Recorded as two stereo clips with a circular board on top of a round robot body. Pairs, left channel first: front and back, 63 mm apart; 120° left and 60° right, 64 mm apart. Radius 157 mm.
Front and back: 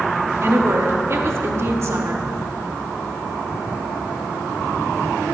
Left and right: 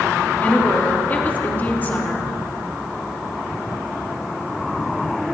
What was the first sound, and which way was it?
A woman speaking, 170° left.